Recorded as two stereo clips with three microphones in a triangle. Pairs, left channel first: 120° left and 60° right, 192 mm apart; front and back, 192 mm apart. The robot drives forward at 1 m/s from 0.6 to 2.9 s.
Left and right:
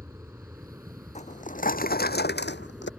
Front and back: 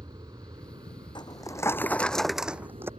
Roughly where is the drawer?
Ahead left.